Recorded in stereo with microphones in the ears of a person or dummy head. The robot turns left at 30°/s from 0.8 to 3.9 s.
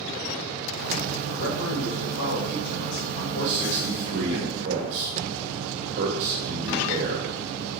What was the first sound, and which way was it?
A man speaking, 125° left.